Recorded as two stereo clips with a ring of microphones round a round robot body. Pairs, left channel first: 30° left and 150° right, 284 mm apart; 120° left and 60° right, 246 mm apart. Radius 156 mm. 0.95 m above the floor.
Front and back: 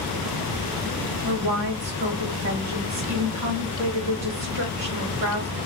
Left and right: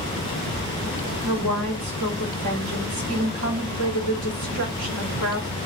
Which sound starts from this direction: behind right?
A woman speaking, at 1.2 s.